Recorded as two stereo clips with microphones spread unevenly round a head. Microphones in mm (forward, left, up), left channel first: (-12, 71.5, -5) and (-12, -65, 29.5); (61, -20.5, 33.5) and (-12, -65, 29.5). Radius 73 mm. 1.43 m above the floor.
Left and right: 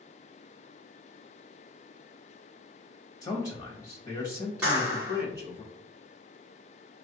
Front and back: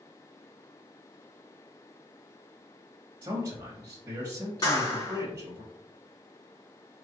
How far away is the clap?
About 1.8 m.